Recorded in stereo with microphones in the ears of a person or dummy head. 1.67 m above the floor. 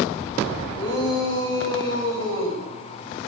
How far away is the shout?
About 8 m.